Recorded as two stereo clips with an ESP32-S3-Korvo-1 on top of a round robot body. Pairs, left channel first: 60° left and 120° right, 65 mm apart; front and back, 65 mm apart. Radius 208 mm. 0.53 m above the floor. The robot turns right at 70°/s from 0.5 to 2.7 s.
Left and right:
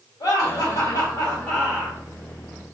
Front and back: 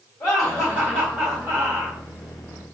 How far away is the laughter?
About 2 m.